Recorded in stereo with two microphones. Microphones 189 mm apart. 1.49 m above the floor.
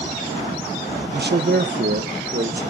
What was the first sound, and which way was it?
A man speaking, 60° right (ahead or behind).